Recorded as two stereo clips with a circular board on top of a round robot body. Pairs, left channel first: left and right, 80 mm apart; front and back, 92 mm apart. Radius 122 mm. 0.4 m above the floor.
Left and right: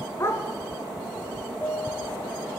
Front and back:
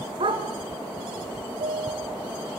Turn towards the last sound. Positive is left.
turn(degrees=160)